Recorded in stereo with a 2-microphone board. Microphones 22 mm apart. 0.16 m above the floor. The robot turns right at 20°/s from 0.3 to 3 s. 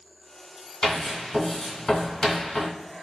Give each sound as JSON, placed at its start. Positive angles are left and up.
{"t": 0.8, "sound": "writing", "side_deg": 25, "distance_m": 1.5}